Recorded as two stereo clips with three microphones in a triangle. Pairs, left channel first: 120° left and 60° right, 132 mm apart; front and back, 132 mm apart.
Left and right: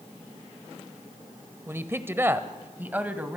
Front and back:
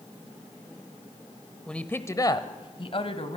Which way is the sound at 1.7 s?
70° right.